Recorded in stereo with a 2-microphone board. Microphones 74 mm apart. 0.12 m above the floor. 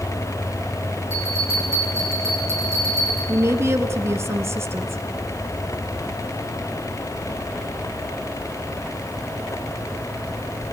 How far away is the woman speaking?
About 1.4 m.